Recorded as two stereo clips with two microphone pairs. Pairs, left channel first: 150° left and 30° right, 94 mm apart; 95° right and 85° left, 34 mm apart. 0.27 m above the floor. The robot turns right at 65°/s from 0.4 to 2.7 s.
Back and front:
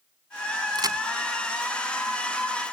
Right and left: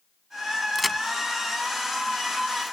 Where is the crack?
5° right; by 1.0 s 10° left.